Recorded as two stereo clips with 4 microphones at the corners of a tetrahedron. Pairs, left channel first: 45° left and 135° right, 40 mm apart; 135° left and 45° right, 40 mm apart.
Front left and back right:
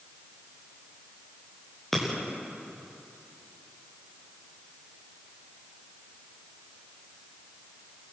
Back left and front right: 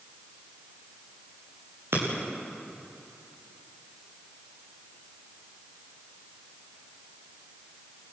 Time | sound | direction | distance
1.9 | breaking glass | 40° right | 7.5 m